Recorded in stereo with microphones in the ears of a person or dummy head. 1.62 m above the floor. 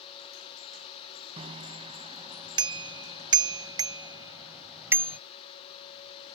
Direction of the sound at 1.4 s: 30° right (ahead or behind).